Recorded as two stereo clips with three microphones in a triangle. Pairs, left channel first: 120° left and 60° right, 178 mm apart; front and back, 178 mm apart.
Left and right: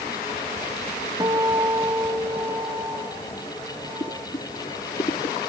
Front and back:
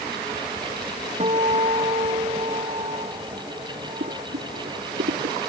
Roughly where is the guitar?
Behind right.